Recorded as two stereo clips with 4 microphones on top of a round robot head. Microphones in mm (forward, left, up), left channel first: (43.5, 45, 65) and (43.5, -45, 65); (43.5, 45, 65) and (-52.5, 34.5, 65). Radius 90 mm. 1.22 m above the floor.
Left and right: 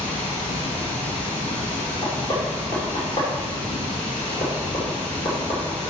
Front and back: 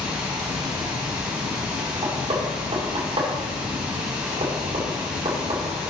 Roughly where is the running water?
Left.